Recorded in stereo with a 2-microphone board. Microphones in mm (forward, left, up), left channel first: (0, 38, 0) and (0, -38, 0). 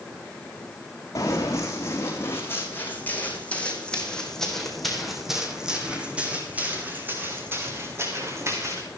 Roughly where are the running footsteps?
Left.